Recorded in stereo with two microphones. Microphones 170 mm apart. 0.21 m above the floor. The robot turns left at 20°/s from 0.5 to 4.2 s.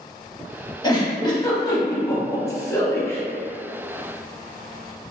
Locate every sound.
0.8 s a giggle: 25° left (ahead or behind), 0.6 m; by 3.2 s 15° left (ahead or behind), 0.6 m